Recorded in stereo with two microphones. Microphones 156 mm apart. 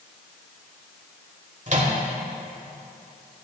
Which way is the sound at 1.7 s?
50° right (ahead or behind).